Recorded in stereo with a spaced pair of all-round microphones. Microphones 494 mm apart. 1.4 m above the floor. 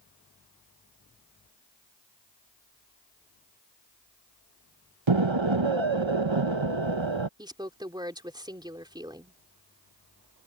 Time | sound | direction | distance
5.1 | an explosion | 70° right (ahead or behind) | ?
7.4 | a woman speaking | 10° right (ahead or behind) | ?